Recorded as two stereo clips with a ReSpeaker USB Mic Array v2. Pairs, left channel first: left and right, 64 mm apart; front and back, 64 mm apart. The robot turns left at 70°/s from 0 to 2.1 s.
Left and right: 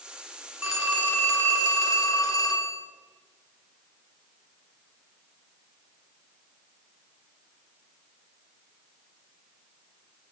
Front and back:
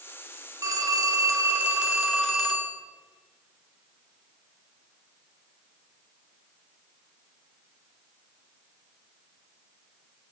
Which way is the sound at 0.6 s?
170° right.